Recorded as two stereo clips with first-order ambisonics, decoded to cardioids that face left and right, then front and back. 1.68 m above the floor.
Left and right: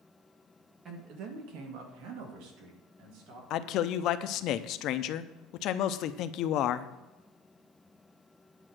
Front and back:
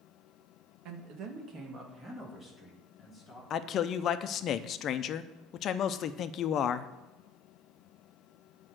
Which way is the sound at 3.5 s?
50° left.